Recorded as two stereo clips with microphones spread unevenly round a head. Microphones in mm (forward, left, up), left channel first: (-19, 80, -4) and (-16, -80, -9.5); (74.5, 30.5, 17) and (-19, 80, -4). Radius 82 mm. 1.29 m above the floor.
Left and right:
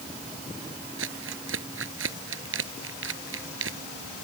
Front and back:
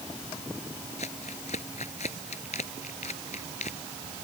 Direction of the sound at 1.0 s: 75° right.